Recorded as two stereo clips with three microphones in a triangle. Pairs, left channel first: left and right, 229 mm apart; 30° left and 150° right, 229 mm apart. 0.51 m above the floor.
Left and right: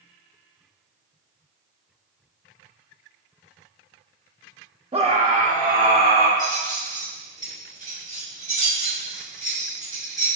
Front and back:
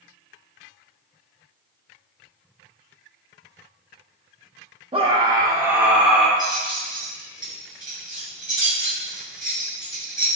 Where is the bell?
No bell in this recording.